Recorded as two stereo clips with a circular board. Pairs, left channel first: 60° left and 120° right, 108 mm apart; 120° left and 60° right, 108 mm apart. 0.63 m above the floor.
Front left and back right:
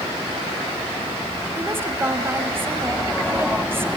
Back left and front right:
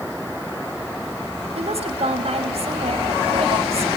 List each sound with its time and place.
1.6 s a woman speaking: 50° right, 3.5 m